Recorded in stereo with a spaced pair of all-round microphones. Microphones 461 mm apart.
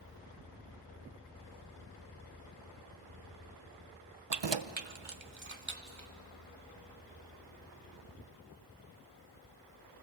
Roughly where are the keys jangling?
Right.